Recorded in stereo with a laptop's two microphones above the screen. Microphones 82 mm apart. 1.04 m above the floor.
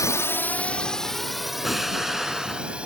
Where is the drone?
40° left (ahead or behind); by 2.9 s 15° right (ahead or behind).